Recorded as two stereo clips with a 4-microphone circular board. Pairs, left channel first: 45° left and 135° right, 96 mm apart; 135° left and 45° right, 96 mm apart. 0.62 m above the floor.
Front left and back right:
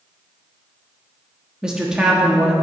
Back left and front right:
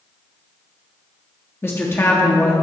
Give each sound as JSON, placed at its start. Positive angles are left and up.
{"t": 1.6, "sound": "a woman speaking", "azimuth_deg": 155, "distance_m": 1.0}